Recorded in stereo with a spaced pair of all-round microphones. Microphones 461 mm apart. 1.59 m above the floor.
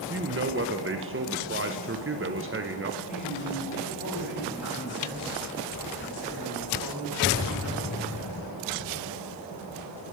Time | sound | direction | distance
0.1 | a man speaking | 30° right (ahead or behind) | 0.6 m
3.1 | a man speaking | 35° left (ahead or behind) | 6.5 m